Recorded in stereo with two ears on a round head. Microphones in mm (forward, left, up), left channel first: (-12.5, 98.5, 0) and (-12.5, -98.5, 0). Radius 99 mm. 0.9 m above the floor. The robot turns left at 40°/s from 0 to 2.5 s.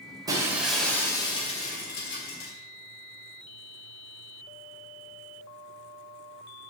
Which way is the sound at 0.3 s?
160° right.